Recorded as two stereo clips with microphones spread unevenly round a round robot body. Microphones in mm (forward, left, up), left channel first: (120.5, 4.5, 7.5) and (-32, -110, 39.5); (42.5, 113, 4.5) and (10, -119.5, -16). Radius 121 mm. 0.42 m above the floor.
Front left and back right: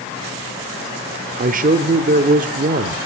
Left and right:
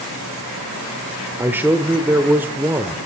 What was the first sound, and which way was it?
A man speaking, 170° right.